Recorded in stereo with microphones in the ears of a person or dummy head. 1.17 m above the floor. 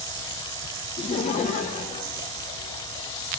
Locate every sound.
1.0 s laughter: 30° left (ahead or behind), 0.7 m; by 3.1 s 40° left (ahead or behind), 2.5 m